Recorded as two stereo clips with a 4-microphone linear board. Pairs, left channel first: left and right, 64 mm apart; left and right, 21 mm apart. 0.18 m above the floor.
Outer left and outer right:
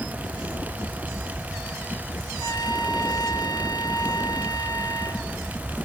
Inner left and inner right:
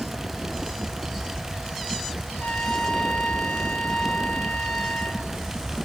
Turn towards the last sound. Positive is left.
turn(degrees=70)  # may be behind; listen again after turning